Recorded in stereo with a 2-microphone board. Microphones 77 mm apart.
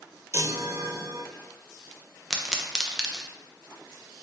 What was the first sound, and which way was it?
A chime, 40° right (ahead or behind).